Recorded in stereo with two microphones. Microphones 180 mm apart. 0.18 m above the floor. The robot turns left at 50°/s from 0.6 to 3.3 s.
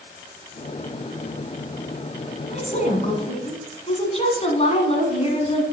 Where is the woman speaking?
100° left, 1.4 m; by 5.6 s 60° left, 1.4 m.